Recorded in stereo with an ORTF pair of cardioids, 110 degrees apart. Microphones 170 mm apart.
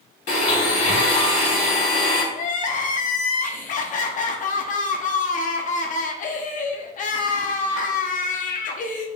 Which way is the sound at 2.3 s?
50° left.